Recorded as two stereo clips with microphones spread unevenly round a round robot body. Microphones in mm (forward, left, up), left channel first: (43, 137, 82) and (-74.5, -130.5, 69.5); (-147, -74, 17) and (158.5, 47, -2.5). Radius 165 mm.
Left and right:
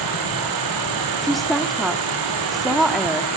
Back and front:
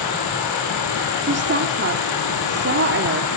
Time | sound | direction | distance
0.0 | an insect | 120° right | 7 m
1.2 | a woman speaking | 25° right | 1.7 m